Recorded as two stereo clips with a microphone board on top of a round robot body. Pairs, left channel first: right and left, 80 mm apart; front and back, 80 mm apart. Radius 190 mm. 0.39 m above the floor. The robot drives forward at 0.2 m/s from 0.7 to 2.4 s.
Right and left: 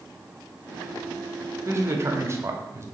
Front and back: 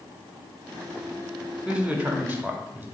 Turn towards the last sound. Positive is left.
turn(degrees=125)